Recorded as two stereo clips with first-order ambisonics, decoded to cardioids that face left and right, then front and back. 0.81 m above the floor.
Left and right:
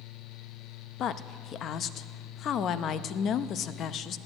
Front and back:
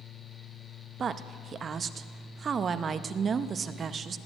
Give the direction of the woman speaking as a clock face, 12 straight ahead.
8 o'clock.